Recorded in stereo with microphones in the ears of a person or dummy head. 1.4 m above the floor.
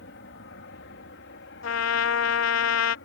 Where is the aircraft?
65° left (ahead or behind).